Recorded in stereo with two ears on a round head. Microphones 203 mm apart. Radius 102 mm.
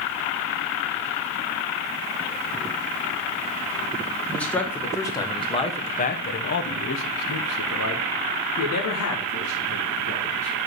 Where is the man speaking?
5° left (ahead or behind), 1.8 m; by 10.6 s 55° left (ahead or behind), 2.5 m.